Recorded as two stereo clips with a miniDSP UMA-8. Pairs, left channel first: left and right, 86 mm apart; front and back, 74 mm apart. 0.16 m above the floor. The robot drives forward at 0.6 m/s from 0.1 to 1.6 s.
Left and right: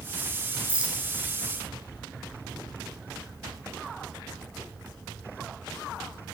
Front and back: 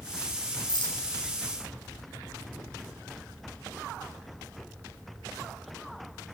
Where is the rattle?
10° right, 1.7 m; by 1.0 s 15° right, 1.5 m.